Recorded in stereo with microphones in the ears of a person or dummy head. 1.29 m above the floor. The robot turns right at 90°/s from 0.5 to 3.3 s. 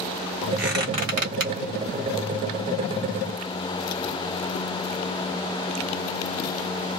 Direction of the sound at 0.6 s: Centre (ahead or behind).